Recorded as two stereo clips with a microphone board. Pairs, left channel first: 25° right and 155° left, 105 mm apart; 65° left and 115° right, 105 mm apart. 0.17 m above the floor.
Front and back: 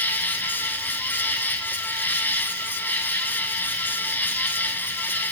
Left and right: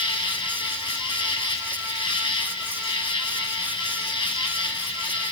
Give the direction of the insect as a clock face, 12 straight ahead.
10 o'clock.